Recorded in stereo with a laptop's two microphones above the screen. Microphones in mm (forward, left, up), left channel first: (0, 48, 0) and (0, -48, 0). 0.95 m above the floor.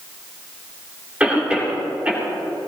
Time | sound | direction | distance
1.2 | a cough | 15° right (ahead or behind) | 3.5 m